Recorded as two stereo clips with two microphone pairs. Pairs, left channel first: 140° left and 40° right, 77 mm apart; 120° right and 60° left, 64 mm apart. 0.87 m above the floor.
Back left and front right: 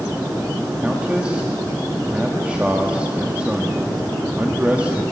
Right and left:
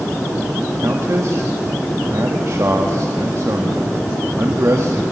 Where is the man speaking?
30° left, 1.7 m.